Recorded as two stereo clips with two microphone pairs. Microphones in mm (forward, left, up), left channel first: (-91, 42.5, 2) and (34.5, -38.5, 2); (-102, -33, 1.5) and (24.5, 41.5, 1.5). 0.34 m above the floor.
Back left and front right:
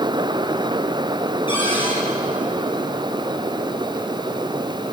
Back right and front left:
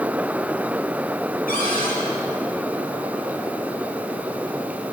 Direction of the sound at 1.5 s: 155° right.